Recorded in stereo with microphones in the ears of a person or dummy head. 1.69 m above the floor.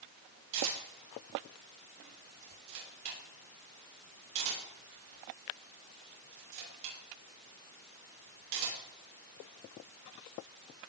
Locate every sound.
0.5 s a camera shutter: 65° right (ahead or behind), 6 m